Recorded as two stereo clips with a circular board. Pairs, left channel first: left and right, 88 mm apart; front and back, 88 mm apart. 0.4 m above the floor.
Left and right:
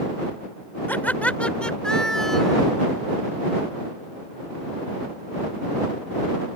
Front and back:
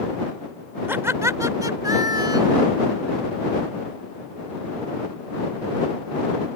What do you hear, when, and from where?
0.9 s laughter: 140° left; by 2.7 s straight behind